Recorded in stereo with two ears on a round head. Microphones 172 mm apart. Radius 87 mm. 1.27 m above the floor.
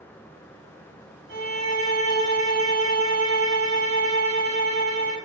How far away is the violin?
About 1.5 m.